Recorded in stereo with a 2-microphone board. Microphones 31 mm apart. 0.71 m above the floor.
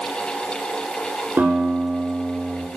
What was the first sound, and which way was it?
A guitar, 90° right.